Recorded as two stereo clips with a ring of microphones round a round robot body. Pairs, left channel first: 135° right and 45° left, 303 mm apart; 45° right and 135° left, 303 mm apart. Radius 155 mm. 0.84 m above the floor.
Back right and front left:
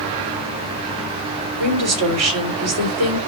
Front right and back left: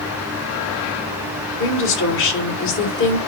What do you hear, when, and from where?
1.6 s a woman speaking: 5° left, 3.5 m